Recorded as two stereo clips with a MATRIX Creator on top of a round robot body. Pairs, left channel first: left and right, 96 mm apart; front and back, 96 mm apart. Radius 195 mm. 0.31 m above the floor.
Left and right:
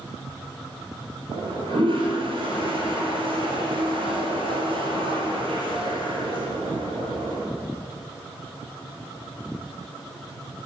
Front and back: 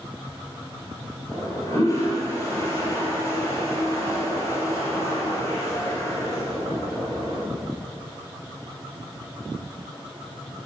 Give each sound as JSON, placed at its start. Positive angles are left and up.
{"t": 1.3, "sound": "a toilet flushing", "azimuth_deg": -60, "distance_m": 3.0}